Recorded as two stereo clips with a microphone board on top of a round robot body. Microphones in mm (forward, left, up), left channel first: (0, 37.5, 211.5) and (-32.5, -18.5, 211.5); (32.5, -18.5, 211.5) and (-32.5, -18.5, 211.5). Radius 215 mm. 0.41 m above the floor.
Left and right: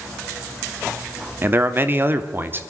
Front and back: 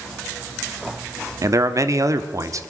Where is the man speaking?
170° right, 1.4 m.